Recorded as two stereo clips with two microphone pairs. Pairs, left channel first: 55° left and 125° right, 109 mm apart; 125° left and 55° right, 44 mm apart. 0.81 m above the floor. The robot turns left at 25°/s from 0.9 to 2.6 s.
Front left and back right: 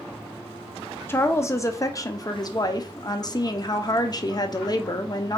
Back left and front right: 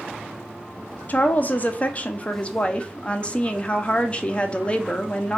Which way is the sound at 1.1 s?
115° left.